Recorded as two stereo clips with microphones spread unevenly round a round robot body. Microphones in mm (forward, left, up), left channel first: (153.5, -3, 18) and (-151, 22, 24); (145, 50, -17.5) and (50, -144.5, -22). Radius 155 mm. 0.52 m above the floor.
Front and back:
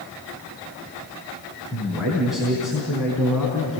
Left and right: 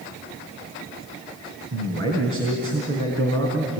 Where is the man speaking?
95° right, 4 m.